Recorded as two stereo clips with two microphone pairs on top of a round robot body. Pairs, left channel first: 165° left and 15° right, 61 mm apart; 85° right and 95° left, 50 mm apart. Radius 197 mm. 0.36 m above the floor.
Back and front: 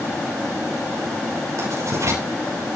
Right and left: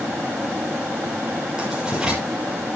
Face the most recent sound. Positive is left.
turn(degrees=20)